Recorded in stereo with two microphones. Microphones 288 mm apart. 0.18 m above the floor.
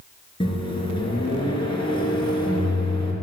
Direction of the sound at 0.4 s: 15° left (ahead or behind).